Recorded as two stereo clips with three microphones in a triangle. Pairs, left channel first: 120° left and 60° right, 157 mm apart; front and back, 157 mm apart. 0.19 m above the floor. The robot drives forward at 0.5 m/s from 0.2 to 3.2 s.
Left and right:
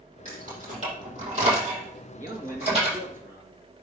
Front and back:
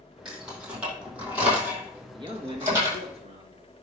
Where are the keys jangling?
95° right, 5.5 m; by 3.0 s 110° right, 5.5 m.